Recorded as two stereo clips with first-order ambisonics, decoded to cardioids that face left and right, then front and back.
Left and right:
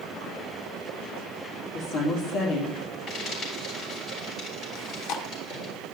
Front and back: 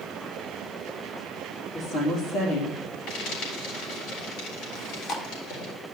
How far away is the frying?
About 4.5 m.